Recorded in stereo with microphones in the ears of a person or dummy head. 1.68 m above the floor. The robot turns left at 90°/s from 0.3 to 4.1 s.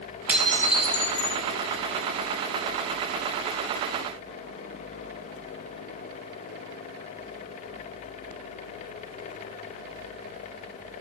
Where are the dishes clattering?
175° right, 1.4 m; by 1.4 s 85° left, 1.4 m.